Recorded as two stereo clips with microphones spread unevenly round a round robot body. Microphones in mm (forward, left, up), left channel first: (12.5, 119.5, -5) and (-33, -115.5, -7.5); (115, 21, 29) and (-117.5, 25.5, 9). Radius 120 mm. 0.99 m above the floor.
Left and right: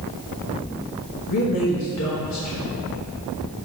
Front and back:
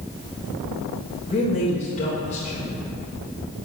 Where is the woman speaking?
60° left, 1.4 m.